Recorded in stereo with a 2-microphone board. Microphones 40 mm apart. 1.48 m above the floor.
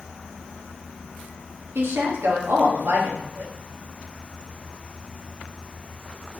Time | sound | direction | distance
1.8 | a woman speaking | 65° right (ahead or behind) | 1.0 m